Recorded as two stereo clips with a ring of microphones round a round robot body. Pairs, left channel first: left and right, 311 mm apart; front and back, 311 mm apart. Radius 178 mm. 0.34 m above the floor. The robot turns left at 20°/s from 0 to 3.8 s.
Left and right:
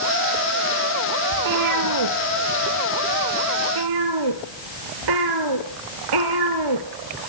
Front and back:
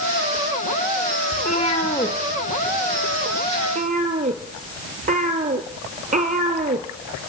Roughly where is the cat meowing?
Ahead right.